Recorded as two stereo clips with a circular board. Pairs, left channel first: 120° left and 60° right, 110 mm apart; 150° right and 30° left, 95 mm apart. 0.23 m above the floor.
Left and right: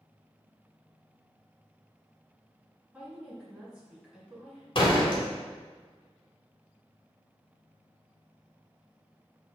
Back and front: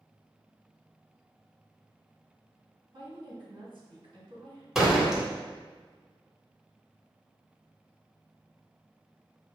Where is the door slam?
115° left, 1.1 m.